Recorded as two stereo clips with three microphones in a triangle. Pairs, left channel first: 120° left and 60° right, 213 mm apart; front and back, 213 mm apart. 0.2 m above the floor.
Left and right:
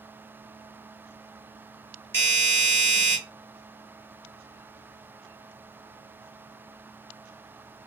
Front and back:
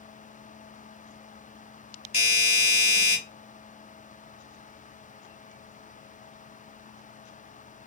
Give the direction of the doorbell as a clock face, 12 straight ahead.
10 o'clock.